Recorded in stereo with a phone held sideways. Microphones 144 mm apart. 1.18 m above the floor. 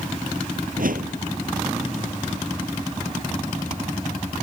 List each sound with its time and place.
0.8 s a whoosh: 75° right (ahead or behind)